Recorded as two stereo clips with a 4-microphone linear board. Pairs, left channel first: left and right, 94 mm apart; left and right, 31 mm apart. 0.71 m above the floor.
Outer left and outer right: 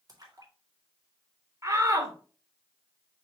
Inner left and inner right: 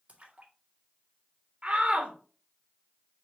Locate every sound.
0.1 s a splash: 40° right (ahead or behind), 2.0 m
1.6 s a shout: 35° right (ahead or behind), 2 m